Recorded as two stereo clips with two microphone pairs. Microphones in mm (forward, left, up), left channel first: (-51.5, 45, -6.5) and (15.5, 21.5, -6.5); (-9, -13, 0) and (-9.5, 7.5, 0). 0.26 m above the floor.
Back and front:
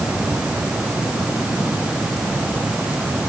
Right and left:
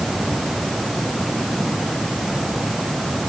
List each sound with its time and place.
Only background noise.